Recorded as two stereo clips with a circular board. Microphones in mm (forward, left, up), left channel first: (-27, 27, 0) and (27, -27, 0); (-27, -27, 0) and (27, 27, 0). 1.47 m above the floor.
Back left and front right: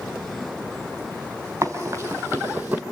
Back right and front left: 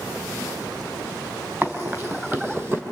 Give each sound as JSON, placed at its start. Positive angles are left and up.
{"t": 1.6, "sound": "running footsteps", "azimuth_deg": -5, "distance_m": 2.0}